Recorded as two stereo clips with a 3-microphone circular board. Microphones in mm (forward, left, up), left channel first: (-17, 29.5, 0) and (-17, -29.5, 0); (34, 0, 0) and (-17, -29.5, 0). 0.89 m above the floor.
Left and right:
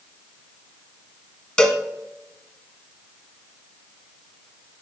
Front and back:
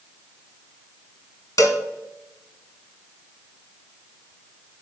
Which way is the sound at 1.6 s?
15° left.